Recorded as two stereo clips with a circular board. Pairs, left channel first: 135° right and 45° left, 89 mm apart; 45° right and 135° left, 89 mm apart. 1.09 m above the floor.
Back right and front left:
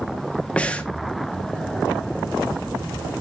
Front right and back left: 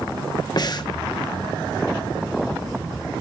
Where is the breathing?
65° right, 1.0 m.